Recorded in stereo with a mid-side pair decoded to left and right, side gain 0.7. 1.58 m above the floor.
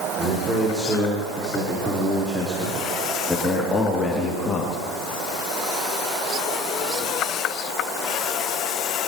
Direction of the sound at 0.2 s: 25° right.